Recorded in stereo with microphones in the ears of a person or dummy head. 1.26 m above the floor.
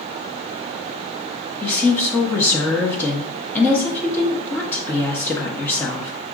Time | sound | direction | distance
1.6 | a woman speaking | 15° left (ahead or behind) | 0.6 m